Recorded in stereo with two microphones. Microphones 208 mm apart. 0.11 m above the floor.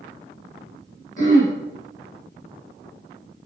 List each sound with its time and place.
1.2 s throat clearing: 40° left (ahead or behind), 2 m